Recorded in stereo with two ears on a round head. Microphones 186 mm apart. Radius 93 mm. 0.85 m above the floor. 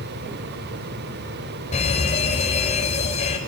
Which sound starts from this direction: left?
A fire alarm, at 1.7 s.